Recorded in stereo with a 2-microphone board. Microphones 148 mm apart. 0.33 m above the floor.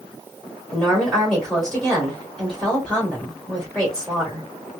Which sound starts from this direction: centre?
A woman speaking, at 0.7 s.